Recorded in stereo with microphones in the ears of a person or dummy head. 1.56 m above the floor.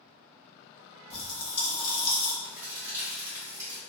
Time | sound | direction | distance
1.1 | a pop | 35° left (ahead or behind) | 1.3 m
2.4 | a crack | 15° right (ahead or behind) | 1.6 m